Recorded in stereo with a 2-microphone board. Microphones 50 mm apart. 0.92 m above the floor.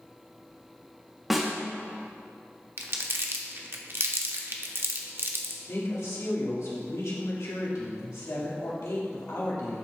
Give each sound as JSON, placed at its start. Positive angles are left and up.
{"t": 1.3, "sound": "a snare drum", "side_deg": -5, "distance_m": 1.4}
{"t": 2.8, "sound": "crumpling", "side_deg": -50, "distance_m": 0.8}
{"t": 5.7, "sound": "a woman speaking", "side_deg": 75, "distance_m": 1.9}